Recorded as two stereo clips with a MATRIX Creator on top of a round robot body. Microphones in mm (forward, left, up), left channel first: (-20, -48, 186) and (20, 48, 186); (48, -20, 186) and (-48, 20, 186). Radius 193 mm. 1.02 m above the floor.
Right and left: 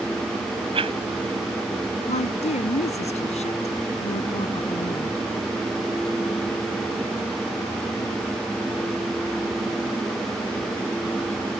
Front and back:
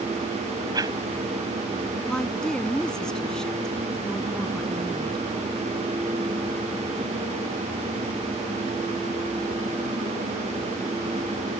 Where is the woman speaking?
105° right.